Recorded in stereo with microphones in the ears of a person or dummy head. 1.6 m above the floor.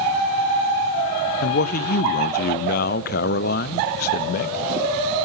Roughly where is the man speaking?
Left.